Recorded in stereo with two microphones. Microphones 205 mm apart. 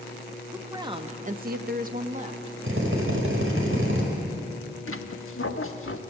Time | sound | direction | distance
0.5 | a woman speaking | 15° right (ahead or behind) | 1.6 m
2.6 | a drill | 70° right (ahead or behind) | 5 m
4.9 | a squeak | 80° left | 1.1 m